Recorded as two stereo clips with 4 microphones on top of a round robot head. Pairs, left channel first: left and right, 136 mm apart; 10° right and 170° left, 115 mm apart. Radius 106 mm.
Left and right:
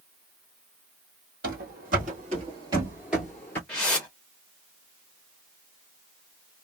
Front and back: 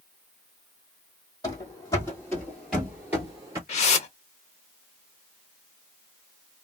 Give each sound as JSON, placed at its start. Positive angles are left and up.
{"t": 1.4, "sound": "running footsteps", "azimuth_deg": -75, "distance_m": 1.6}
{"t": 3.7, "sound": "a whoosh", "azimuth_deg": 5, "distance_m": 0.6}